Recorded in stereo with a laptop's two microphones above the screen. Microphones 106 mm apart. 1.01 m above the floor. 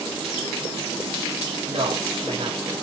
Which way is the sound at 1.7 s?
65° right (ahead or behind).